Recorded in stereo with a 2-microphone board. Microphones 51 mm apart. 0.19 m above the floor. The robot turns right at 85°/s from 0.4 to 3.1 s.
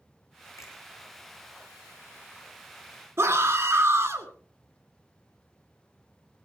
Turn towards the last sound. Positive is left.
turn(degrees=-60)  # may be behind; listen again after turning